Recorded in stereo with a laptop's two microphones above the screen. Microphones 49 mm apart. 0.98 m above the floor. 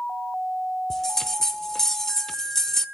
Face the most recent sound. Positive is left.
turn(degrees=10)  # may be behind; listen again after turning